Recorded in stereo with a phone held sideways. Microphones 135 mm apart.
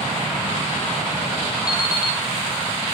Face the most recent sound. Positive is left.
turn(degrees=25)  # may be behind; listen again after turning